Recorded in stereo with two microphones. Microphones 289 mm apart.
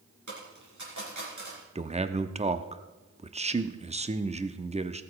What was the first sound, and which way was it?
A dropped coin, 90° right.